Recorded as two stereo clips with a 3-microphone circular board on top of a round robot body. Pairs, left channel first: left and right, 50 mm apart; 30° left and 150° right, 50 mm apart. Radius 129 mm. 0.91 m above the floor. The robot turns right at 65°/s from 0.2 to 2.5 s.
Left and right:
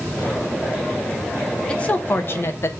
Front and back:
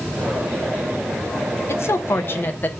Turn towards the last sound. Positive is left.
turn(degrees=75)